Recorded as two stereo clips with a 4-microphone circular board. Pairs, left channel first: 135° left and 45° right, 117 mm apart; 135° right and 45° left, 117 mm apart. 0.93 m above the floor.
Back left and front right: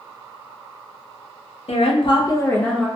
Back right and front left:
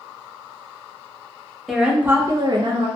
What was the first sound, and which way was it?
A woman speaking, 135° left.